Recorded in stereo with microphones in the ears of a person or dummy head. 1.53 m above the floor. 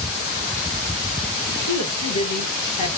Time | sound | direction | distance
1.7 | a woman speaking | 50° left (ahead or behind) | 1.5 m